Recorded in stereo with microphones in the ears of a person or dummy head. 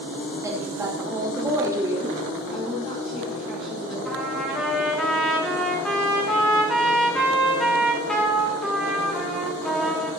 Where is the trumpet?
5° left (ahead or behind), 2.5 m.